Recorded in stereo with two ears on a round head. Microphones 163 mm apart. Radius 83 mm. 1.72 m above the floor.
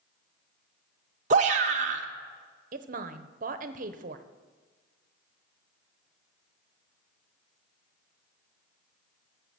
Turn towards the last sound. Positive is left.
turn(degrees=-45)  # may be behind; listen again after turning